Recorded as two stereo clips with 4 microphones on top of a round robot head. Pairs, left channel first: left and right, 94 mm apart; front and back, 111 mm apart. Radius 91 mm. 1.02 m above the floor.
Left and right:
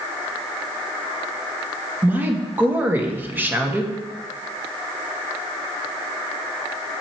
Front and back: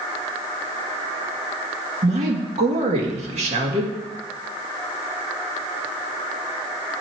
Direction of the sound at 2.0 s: 160° right.